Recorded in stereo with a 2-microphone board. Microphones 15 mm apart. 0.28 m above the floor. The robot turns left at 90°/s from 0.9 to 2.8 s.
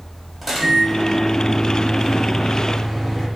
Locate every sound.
0.4 s a microwave: 5° right, 1.1 m; by 3.3 s 175° right, 1.1 m